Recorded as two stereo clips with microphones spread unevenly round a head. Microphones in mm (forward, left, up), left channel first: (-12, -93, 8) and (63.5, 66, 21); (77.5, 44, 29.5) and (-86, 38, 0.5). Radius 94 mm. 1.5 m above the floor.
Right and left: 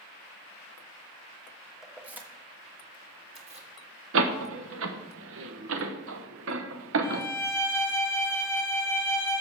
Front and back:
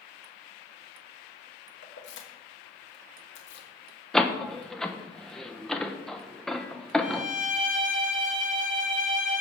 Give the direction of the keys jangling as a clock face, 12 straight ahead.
1 o'clock.